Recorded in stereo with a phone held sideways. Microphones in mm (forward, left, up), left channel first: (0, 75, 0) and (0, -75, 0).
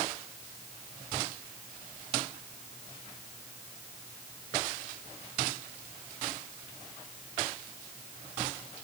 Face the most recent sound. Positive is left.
No sound to turn to.